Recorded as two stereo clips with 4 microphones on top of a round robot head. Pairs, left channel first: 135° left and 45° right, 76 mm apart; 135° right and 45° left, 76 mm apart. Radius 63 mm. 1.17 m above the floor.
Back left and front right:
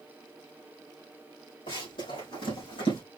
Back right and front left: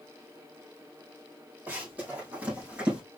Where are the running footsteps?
115° left, 4 m; by 3.0 s 120° left, 3 m.